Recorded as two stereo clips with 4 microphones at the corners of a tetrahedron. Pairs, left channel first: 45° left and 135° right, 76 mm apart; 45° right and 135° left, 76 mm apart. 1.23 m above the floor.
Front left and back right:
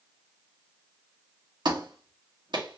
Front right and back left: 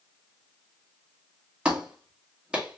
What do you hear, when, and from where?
1.6 s a clap: 150° right, 1.5 m